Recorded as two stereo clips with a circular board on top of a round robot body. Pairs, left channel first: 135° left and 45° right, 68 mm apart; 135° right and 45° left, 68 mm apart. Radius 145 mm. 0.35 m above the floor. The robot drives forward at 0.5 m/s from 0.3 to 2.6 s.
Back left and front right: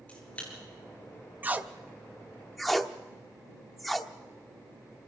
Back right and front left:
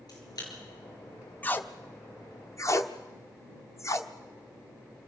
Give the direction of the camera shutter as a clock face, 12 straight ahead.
5 o'clock.